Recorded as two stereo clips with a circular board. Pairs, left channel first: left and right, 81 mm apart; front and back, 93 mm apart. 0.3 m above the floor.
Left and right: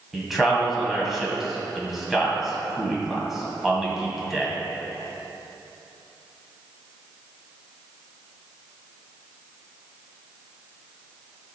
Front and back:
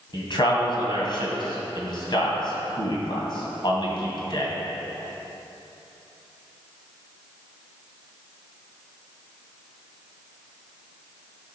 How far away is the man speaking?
About 2 m.